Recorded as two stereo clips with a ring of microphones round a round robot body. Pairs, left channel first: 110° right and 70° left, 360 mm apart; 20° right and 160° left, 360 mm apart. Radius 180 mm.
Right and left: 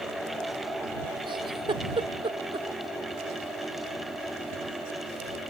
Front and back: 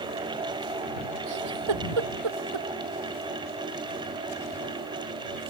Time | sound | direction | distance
1.3 | a giggle | 145° left | ?